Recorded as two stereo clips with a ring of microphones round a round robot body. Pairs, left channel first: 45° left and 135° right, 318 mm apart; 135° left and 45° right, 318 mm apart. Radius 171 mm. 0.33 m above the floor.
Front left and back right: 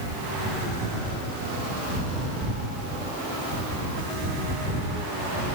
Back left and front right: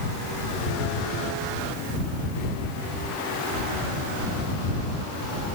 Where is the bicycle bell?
No bicycle bell in this recording.